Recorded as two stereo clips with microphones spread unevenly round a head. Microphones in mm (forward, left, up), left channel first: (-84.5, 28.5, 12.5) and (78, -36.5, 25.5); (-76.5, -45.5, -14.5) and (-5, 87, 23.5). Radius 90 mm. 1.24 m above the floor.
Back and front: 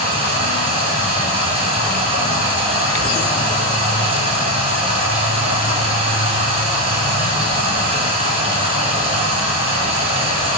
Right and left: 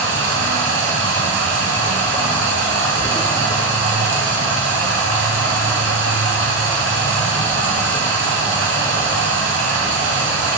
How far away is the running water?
About 1.6 m.